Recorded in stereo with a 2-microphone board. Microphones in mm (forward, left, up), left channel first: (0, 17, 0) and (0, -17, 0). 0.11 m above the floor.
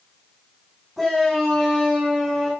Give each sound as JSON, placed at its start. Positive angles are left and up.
{"t": 1.0, "sound": "a shout", "side_deg": 5, "distance_m": 10.0}